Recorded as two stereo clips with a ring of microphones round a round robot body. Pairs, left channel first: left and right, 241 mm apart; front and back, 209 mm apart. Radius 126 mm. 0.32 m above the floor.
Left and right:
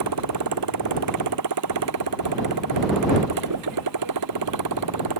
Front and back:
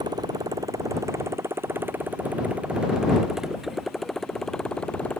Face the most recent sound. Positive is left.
turn(degrees=-85)